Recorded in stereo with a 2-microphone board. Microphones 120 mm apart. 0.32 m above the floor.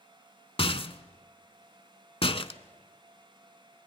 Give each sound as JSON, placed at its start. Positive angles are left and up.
{"t": 0.6, "sound": "a rattle", "side_deg": 50, "distance_m": 0.8}